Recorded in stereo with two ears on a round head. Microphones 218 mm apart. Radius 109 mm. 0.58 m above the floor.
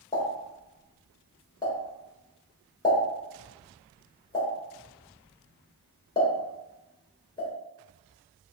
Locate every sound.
0.1 s a pop: 15° left (ahead or behind), 1.3 m